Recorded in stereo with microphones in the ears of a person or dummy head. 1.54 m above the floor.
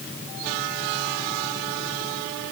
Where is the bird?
No bird in this recording.